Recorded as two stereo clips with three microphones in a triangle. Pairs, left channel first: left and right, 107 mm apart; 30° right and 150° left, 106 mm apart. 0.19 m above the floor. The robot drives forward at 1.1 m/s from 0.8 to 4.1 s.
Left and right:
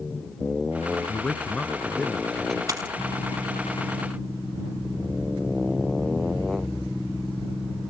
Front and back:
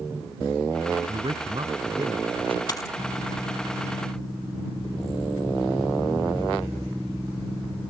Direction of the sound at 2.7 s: 55° right.